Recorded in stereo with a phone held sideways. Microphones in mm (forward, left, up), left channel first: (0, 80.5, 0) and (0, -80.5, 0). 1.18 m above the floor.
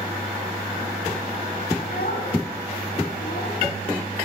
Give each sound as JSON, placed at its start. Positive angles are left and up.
{"t": 1.8, "sound": "a child speaking", "side_deg": 70, "distance_m": 6.5}